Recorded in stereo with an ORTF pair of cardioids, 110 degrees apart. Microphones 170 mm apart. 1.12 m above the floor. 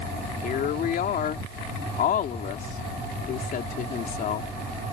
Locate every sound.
0.4 s a woman speaking: 60° left